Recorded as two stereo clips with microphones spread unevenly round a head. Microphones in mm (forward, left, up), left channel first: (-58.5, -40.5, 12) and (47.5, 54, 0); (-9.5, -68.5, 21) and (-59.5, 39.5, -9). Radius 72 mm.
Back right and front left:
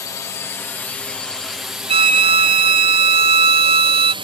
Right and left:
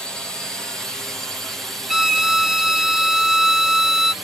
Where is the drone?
175° right; by 4.2 s 50° left.